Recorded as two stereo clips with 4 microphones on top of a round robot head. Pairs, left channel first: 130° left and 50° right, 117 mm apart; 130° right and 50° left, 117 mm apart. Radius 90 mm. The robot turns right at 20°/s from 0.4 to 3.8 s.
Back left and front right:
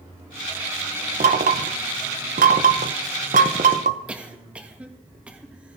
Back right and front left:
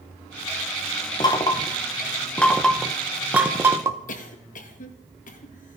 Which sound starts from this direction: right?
Knocking, at 1.2 s.